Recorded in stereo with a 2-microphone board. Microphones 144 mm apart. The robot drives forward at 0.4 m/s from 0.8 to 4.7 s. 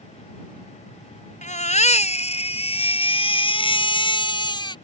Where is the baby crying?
55° left (ahead or behind); by 4.8 s 30° left (ahead or behind).